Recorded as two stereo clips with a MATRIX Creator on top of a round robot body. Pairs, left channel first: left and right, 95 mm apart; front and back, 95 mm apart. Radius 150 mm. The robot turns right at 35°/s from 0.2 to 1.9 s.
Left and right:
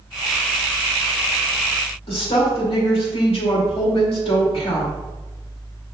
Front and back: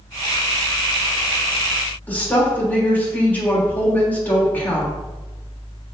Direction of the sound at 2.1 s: 70° left.